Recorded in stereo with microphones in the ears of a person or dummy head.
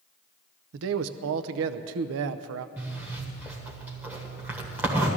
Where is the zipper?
5° right (ahead or behind), 1.3 m.